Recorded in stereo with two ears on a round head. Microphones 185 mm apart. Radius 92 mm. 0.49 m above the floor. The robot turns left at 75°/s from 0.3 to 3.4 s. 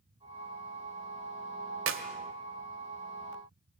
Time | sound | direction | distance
1.9 | a clap | 70° right (ahead or behind) | 1.6 m